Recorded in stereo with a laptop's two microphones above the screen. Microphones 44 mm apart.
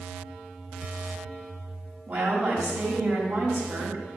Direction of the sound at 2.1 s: 50° right (ahead or behind).